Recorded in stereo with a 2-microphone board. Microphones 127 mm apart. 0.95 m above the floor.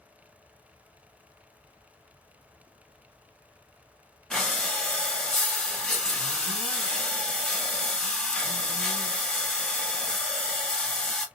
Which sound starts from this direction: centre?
Breathing, at 4.3 s.